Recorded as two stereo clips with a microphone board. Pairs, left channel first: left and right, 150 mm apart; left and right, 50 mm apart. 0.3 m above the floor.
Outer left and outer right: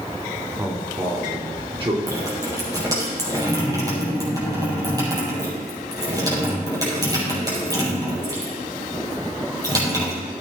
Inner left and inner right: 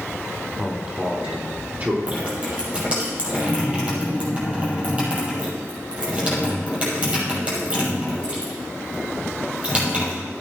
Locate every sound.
0.6 s a man speaking: 20° right (ahead or behind), 2.5 m; by 2.0 s 35° right (ahead or behind), 4 m
2.1 s dripping: 25° right (ahead or behind), 5.5 m